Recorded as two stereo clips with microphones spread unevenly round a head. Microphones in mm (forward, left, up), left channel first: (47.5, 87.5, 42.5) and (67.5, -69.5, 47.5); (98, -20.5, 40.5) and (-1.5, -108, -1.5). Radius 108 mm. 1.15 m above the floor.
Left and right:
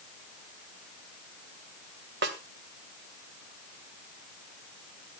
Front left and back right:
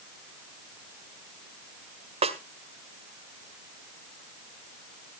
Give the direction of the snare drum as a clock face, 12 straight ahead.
3 o'clock.